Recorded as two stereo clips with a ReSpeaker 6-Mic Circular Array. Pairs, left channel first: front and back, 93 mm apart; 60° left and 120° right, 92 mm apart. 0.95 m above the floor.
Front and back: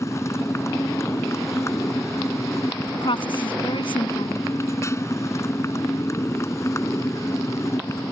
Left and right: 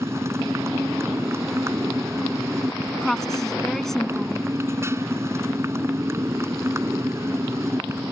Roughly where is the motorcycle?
Ahead right.